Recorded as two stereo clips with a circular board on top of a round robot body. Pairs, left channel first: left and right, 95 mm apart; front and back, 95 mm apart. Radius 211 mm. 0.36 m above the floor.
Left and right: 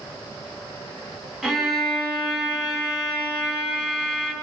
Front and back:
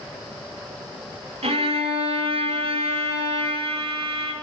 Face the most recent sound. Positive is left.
turn(degrees=-175)